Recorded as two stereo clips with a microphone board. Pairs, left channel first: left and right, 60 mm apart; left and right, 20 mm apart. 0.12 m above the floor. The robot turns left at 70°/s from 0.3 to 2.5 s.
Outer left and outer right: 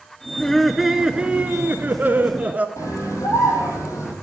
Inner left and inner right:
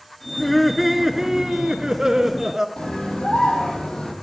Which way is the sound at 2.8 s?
65° left (ahead or behind).